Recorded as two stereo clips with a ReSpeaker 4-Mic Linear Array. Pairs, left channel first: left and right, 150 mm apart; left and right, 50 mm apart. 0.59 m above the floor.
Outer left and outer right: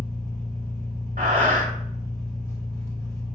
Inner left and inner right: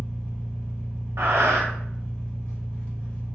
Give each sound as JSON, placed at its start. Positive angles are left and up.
{"t": 0.0, "sound": "an engine running", "side_deg": 20, "distance_m": 0.9}
{"t": 1.2, "sound": "breathing", "side_deg": -80, "distance_m": 0.8}